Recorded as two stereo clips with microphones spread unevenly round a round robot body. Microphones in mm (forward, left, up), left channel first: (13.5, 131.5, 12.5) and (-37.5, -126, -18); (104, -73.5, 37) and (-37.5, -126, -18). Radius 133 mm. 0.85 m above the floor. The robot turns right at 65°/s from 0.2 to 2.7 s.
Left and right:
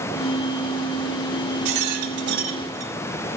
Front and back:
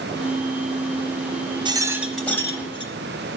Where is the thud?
No thud in this recording.